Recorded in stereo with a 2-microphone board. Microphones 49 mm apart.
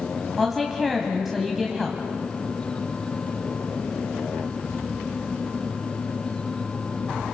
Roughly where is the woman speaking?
Centre.